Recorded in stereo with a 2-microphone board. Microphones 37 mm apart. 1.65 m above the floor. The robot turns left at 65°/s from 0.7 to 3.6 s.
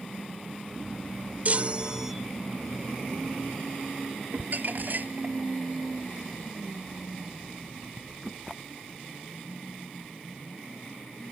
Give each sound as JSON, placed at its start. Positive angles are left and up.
{"t": 1.4, "sound": "a chime", "azimuth_deg": -125}
{"t": 4.3, "sound": "crumpling", "side_deg": -60}